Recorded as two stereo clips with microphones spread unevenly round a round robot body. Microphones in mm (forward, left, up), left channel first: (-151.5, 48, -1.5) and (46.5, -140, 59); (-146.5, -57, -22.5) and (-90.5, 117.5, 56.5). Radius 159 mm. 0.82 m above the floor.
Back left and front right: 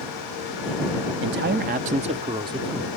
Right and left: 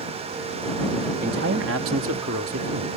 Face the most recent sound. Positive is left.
turn(degrees=40)